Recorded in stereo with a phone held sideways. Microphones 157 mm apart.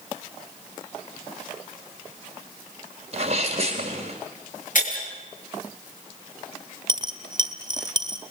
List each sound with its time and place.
3.1 s a sneeze: 45° right (ahead or behind), 1.9 m
4.8 s breaking glass: 65° left (ahead or behind), 7 m
6.9 s a dropped coin: 30° right (ahead or behind), 1.2 m